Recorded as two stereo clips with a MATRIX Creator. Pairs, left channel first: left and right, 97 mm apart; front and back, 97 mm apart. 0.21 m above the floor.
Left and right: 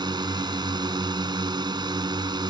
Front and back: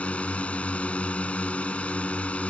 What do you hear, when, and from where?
0.0 s a drone: 75° right